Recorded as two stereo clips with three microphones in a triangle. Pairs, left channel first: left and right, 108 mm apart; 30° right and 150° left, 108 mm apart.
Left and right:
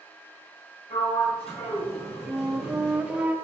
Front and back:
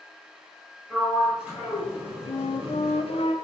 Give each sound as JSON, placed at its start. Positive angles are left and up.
{"t": 0.9, "sound": "a sliding door", "azimuth_deg": 70, "distance_m": 4.5}
{"t": 2.3, "sound": "a flute", "azimuth_deg": -10, "distance_m": 0.9}